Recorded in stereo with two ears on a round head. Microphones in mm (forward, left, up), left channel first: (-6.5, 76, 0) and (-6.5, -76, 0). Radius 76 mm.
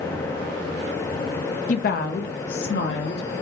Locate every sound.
1.7 s a woman speaking: 50° left (ahead or behind), 0.9 m; by 3.3 s 75° left (ahead or behind), 2.5 m